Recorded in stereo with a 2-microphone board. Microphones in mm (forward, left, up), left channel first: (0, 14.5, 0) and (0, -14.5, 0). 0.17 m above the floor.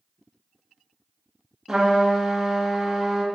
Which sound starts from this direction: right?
A trumpet, at 1.7 s.